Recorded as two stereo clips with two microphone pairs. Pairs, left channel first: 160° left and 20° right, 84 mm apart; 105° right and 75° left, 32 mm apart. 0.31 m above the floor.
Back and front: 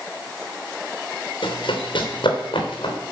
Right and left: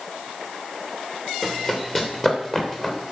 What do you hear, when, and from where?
1.4 s running footsteps: 175° left, 2.5 m; by 3.0 s 175° right, 3.5 m